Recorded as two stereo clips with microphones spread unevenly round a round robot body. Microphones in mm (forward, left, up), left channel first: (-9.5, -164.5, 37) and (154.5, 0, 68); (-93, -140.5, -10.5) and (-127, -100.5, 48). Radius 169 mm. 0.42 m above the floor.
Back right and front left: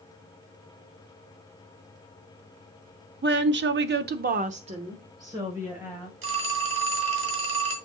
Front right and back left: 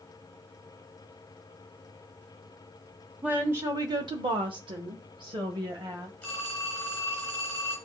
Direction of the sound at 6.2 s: 10° left.